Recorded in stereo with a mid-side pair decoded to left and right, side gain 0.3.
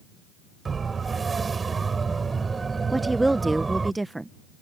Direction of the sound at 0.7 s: 50° right.